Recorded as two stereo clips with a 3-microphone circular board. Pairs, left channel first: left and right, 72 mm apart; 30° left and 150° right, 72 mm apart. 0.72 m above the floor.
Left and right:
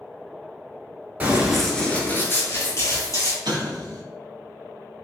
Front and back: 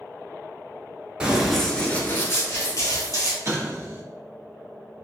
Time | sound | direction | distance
1.2 | running footsteps | 105° right | 0.7 m
3.5 | an explosion | 95° right | 0.7 m